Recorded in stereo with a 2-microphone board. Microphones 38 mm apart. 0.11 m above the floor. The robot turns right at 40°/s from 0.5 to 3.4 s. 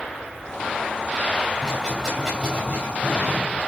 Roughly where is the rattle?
Left.